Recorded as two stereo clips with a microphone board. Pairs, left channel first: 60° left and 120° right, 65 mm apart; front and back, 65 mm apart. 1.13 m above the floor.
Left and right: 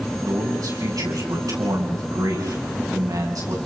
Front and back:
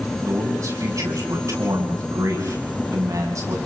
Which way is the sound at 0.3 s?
140° right.